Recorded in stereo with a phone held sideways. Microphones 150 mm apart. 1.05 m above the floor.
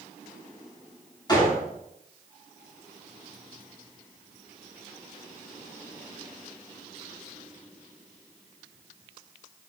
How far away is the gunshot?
About 4 m.